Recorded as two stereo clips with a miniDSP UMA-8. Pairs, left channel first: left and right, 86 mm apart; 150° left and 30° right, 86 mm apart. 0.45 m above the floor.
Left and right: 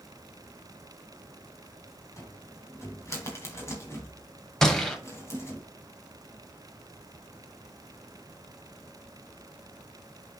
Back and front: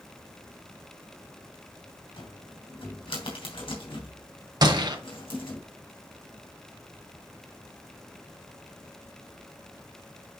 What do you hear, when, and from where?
2.2 s a cupboard door: 145° left, 3 m
4.6 s a gunshot: 5° left, 1.6 m